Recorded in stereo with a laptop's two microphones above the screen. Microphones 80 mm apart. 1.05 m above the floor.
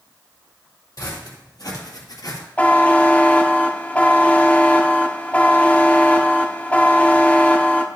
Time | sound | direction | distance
1.0 | footsteps | 50° left (ahead or behind) | 2.5 m
2.6 | a buzzer | 20° left (ahead or behind) | 0.8 m